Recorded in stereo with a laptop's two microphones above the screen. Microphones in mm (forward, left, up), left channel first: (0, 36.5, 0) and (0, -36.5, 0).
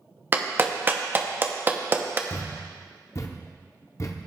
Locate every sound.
0.3 s a clap: 30° right (ahead or behind), 0.8 m
2.3 s a thud: 45° left (ahead or behind), 0.7 m